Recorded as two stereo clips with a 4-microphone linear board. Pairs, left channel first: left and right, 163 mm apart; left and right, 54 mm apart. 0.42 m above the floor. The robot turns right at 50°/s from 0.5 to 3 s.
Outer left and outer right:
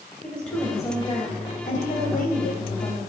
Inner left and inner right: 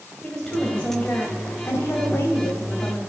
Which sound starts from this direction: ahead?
A woman speaking, at 0.2 s.